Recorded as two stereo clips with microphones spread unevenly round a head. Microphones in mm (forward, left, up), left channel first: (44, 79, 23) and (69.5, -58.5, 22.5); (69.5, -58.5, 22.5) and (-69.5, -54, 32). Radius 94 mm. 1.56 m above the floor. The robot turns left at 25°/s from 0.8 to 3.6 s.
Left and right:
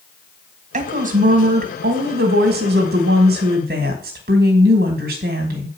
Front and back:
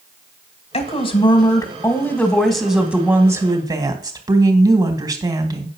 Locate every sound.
0.7 s a woman speaking: 50° right, 2 m; by 5.7 s 120° right, 2 m